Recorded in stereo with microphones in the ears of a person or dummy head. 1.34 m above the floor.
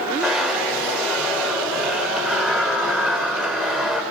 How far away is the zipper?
About 1.8 m.